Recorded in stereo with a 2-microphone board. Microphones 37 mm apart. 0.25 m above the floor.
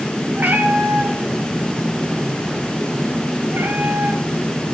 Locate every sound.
0.4 s a cat meowing: 60° right (ahead or behind), 3.5 m; by 4.2 s 80° right, 2 m